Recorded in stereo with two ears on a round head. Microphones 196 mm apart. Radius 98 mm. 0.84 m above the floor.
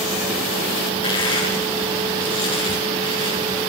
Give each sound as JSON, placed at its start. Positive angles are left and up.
{"t": 1.0, "sound": "crushing", "side_deg": 25, "distance_m": 8.5}